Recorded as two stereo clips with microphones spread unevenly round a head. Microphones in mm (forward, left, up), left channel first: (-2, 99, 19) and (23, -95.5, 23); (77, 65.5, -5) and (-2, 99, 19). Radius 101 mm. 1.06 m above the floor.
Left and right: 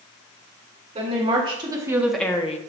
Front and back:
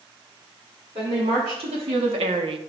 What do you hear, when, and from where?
0.9 s a woman speaking: 140° right, 2 m; by 2.6 s 145° left, 0.7 m